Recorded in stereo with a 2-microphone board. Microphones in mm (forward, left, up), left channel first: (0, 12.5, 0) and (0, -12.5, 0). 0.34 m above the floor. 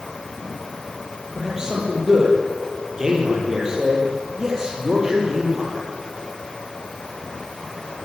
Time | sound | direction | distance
1.4 | a man speaking | 25° right (ahead or behind) | 10 m